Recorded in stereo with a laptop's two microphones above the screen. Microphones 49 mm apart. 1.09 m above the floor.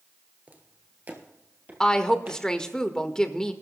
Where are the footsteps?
35° right (ahead or behind), 1.3 m; by 2.4 s 30° right (ahead or behind), 2 m.